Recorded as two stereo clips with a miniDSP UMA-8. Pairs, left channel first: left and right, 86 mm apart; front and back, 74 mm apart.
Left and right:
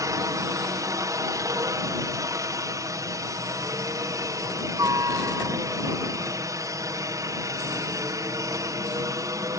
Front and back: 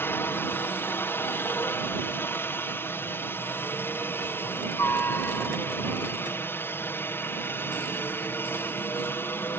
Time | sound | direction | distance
0.0 | a helicopter | 55° right | ?